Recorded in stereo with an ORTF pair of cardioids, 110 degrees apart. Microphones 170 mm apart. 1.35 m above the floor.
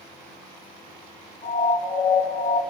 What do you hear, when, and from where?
1.4 s a siren: 60° left, 6 m